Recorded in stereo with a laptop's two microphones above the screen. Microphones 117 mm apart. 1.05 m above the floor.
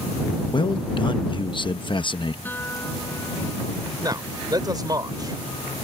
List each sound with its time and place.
0.5 s a man speaking: 45° left (ahead or behind)
2.5 s a guitar: 15° left (ahead or behind)
4.0 s a man speaking: 35° right (ahead or behind)